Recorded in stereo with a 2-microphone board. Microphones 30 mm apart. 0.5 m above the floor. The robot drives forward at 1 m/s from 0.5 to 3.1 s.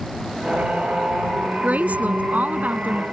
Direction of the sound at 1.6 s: 55° right (ahead or behind).